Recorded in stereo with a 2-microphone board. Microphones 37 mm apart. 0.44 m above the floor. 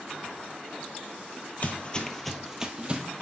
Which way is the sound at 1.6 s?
40° left (ahead or behind).